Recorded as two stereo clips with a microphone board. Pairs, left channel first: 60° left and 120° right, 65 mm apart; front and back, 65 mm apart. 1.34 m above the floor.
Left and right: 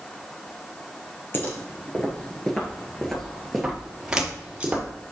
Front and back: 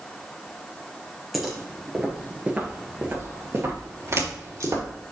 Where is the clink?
I don't hear a clink.